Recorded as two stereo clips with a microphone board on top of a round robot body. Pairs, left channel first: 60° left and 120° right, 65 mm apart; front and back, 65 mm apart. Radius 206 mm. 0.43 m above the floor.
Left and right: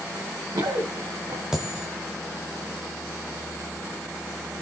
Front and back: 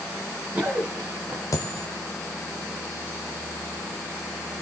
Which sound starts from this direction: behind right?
Running footsteps, at 0.1 s.